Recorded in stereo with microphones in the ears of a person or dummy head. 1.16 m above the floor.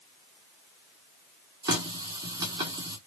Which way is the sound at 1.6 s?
20° right (ahead or behind).